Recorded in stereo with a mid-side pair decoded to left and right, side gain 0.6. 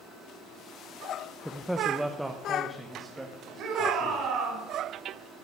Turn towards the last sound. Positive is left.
turn(degrees=-60)